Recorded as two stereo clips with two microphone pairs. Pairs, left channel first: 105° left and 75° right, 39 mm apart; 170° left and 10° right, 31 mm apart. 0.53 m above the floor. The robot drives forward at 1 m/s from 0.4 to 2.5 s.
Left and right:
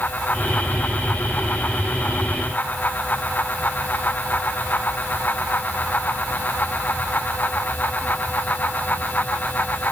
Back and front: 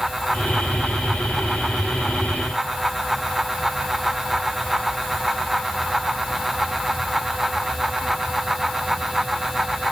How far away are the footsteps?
I don't hear footsteps.